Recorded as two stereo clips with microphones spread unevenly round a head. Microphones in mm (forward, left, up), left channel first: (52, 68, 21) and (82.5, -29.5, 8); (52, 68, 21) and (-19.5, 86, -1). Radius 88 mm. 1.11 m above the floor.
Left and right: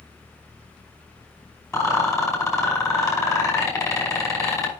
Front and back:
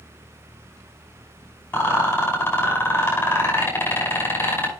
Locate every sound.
1.7 s a rattle: 50° left, 5.5 m